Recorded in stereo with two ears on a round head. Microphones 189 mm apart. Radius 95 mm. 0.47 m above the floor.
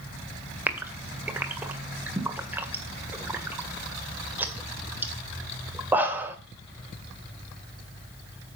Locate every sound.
0.7 s a gasp: 10° right (ahead or behind), 1.9 m